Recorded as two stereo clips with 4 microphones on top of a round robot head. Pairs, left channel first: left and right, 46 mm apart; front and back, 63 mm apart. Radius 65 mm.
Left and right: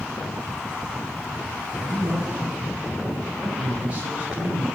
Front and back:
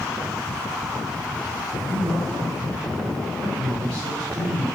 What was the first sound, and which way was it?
A man speaking, 145° right.